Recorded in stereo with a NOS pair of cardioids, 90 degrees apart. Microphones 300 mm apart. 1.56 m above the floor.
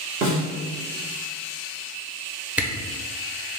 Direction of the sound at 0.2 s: 45° right.